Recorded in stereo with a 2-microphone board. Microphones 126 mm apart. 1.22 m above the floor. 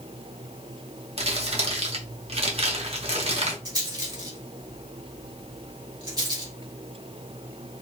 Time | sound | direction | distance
1.2 | crumpling | 55° right (ahead or behind) | 0.9 m
3.6 | a rattle | 35° right (ahead or behind) | 1.5 m